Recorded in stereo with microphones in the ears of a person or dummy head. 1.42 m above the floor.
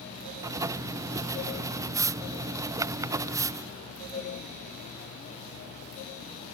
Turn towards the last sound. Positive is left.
turn(degrees=-15)  # may be behind; listen again after turning